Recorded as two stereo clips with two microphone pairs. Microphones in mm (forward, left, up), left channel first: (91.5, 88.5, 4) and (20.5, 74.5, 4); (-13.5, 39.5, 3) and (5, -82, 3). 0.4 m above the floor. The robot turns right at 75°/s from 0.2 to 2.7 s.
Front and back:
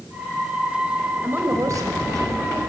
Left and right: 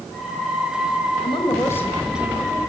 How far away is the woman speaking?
About 1.8 m.